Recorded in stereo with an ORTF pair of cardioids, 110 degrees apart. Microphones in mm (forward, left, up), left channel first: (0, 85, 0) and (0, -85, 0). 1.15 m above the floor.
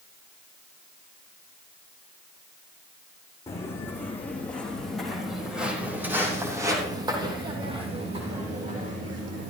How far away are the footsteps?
About 4.5 m.